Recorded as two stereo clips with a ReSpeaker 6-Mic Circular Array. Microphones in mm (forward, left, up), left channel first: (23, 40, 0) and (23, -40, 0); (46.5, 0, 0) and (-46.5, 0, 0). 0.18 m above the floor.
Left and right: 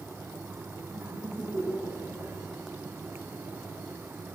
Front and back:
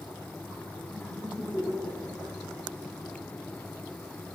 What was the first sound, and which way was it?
Laughter, 115° right.